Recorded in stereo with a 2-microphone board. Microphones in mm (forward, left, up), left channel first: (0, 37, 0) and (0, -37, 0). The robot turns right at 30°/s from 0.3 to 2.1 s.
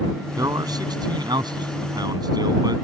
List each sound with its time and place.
0.4 s a man speaking: 125° right; by 2.9 s 70° right